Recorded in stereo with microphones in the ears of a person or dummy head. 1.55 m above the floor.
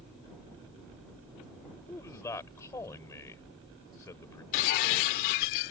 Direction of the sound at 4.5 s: 45° left (ahead or behind).